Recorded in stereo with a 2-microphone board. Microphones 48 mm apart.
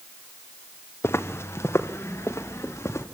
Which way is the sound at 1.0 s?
65° left (ahead or behind).